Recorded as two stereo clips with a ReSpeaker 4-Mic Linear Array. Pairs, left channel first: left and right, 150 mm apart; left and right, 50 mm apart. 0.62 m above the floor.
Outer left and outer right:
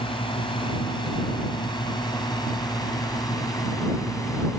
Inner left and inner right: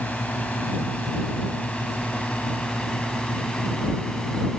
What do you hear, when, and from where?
0.0 s a drone: 35° left (ahead or behind); by 4.6 s 20° left (ahead or behind)